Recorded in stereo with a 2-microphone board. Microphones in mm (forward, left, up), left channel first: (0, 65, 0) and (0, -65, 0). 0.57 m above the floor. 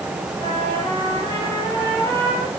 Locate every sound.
0.4 s a trumpet: 40° right (ahead or behind), 9 m